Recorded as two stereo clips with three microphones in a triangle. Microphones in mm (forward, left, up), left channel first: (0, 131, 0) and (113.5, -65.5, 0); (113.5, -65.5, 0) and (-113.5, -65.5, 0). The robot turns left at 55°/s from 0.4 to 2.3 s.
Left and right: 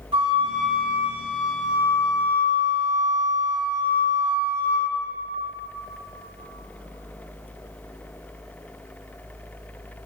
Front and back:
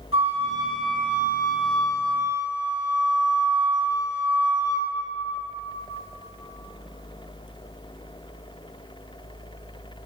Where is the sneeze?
I don't hear a sneeze.